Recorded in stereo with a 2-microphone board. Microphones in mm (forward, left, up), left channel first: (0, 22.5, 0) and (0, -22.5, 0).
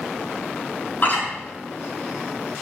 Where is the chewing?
40° left (ahead or behind), 5 m.